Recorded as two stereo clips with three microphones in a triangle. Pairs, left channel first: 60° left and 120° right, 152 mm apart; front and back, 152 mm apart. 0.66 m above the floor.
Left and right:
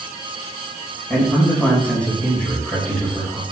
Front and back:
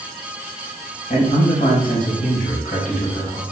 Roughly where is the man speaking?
Ahead.